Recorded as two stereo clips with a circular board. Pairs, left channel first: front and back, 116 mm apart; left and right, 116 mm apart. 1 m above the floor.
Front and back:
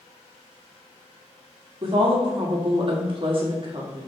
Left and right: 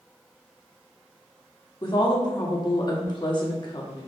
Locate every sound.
1.8 s a woman speaking: 140° left, 1.6 m